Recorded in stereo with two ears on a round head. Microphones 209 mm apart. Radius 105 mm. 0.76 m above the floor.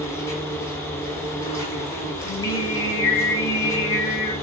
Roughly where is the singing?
Centre.